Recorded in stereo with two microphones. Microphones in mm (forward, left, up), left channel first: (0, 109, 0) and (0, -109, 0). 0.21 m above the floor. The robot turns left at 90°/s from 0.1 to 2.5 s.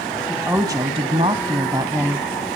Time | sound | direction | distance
0.3 | a woman speaking | centre (ahead or behind) | 1.0 m